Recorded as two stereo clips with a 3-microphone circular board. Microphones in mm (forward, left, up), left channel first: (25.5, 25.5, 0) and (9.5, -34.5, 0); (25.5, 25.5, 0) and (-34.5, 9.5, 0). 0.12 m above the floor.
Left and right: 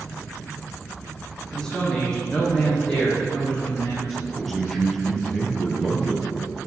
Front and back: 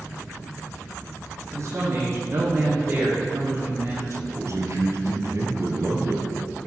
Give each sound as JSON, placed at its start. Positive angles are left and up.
{"t": 1.5, "sound": "a man speaking", "azimuth_deg": 155, "distance_m": 6.0}
{"t": 4.1, "sound": "a man speaking", "azimuth_deg": 165, "distance_m": 3.5}